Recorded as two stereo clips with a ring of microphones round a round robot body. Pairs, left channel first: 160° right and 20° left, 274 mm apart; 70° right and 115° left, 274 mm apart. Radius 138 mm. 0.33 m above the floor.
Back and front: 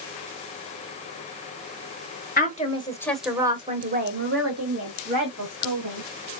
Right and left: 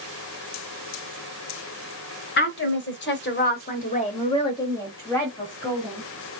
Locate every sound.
2.4 s a woman speaking: 105° right, 1.4 m; by 6.0 s 20° left, 2.5 m